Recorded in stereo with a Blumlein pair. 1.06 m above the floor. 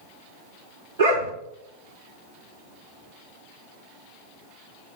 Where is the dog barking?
55° right, 4.5 m.